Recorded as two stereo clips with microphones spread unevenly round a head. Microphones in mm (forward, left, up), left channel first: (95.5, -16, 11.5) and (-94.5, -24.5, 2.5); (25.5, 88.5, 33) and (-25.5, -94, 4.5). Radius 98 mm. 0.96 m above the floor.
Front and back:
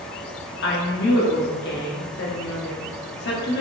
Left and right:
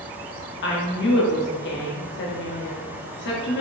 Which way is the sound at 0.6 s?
40° left.